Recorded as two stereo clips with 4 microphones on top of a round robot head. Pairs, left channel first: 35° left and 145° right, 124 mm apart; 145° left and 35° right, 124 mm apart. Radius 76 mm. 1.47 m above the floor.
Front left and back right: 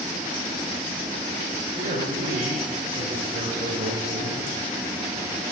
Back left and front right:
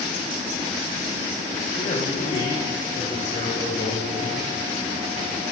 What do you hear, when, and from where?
1.7 s a man speaking: 175° right, 6.5 m